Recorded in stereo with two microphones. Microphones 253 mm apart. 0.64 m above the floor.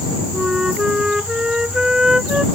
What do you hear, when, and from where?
0.3 s a flute: 5° right (ahead or behind)